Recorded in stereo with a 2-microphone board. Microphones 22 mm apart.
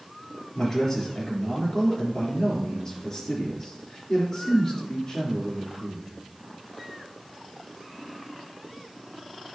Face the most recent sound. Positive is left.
turn(degrees=25)  # may be behind; listen again after turning